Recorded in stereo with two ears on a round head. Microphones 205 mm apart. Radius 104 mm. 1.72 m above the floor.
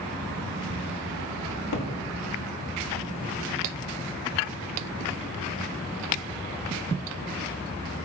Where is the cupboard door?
85° left, 1.7 m.